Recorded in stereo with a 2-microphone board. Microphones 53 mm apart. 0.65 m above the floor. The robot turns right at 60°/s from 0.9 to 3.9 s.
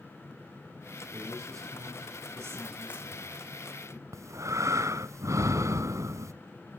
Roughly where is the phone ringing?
I don't hear a phone ringing.